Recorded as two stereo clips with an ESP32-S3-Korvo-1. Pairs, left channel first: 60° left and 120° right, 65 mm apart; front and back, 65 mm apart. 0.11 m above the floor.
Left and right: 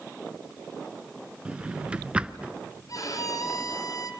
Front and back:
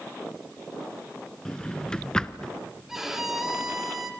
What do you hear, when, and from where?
1.4 s a drawer: 65° right, 0.6 m
2.9 s a violin: 95° left, 1.9 m